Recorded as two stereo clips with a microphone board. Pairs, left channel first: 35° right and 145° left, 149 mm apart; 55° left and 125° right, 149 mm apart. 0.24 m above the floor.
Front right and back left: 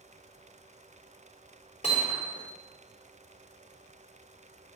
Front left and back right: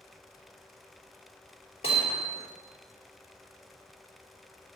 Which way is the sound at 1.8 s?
5° left.